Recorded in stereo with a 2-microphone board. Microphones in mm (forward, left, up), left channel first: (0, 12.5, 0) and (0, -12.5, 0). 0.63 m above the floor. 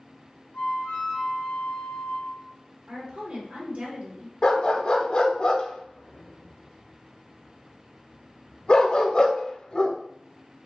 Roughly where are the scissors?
No scissors in this recording.